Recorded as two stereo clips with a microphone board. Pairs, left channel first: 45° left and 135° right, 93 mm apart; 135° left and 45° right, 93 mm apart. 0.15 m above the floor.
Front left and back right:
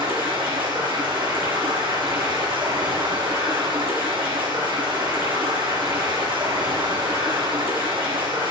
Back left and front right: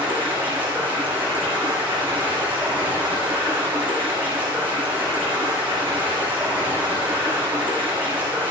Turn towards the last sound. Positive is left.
turn(degrees=-115)